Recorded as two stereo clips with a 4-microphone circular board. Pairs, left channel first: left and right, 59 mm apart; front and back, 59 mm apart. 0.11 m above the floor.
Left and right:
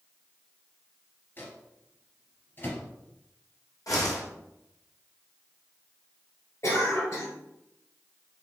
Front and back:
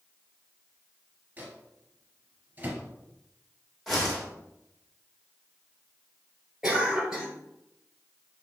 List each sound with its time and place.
1.4 s a microwave: 130° left, 1.5 m
3.9 s a whoosh: 90° left, 2 m
6.6 s a cough: 100° left, 2.0 m